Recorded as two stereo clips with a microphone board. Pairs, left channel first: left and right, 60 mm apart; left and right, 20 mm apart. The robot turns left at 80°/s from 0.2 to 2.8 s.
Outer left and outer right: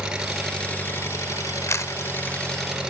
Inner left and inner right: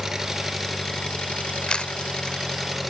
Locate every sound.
0.0 s an engine running: 165° right, 2.5 m; by 2.9 s 15° right, 2.5 m
1.7 s a camera shutter: 55° left (ahead or behind), 0.5 m; by 1.9 s 70° left (ahead or behind), 0.5 m